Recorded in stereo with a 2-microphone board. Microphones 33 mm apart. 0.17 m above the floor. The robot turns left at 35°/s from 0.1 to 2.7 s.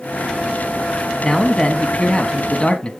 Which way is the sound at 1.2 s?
10° left (ahead or behind).